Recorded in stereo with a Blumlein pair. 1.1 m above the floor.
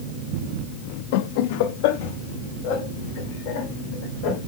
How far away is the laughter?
About 0.7 m.